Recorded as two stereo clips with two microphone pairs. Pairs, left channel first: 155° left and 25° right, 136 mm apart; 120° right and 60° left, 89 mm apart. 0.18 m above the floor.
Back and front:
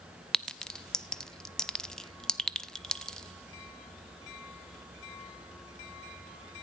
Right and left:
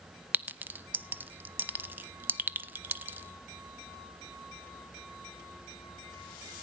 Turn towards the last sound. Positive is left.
turn(degrees=75)